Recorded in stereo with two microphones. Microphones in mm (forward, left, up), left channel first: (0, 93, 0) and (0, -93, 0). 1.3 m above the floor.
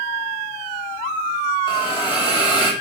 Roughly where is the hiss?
Left.